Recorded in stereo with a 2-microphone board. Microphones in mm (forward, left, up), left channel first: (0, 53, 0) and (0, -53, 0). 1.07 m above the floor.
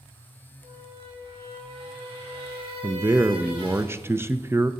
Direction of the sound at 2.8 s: 25° right (ahead or behind).